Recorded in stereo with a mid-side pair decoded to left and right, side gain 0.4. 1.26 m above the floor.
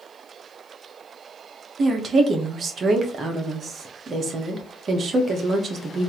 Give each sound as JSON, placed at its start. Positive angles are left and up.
{"t": 1.8, "sound": "a woman speaking", "azimuth_deg": -50, "distance_m": 1.4}